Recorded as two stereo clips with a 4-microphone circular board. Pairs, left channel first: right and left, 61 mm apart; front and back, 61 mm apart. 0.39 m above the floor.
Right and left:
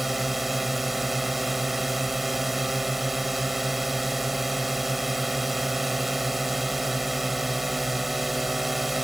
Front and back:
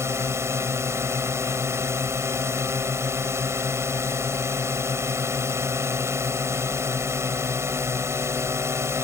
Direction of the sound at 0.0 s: 175° left.